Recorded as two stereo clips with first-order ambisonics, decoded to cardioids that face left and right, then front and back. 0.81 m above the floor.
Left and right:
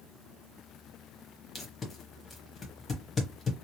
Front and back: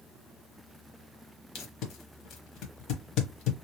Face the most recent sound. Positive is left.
turn(degrees=25)